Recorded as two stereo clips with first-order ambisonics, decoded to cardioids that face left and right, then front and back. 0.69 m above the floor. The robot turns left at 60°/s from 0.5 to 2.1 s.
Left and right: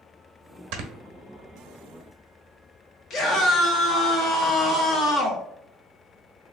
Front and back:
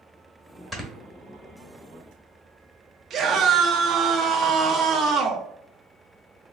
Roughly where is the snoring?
Right.